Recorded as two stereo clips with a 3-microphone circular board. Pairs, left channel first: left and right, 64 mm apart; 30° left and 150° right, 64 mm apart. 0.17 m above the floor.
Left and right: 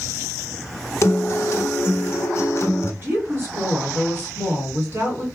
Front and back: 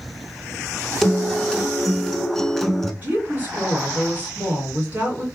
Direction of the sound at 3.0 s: 105° right.